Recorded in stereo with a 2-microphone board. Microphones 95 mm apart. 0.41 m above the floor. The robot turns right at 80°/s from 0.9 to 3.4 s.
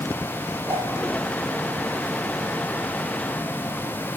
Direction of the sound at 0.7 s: 25° right (ahead or behind).